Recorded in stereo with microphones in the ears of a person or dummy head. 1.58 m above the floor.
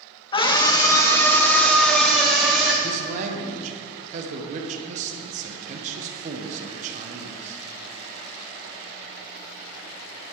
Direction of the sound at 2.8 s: 55° right (ahead or behind).